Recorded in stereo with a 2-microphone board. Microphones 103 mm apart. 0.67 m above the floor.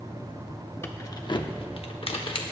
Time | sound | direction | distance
0.8 | keys jangling | 25° left (ahead or behind) | 1.1 m